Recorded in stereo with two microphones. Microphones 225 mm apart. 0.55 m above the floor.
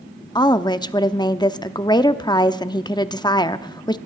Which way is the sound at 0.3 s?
20° left (ahead or behind).